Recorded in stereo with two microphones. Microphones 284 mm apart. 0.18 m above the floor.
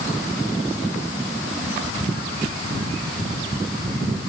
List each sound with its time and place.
Only background noise.